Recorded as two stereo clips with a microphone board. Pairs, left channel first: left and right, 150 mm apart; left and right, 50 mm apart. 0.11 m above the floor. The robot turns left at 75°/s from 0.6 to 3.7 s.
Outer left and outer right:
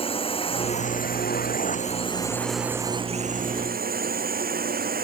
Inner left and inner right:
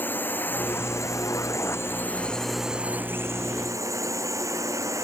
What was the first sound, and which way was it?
A drone, 35° left (ahead or behind).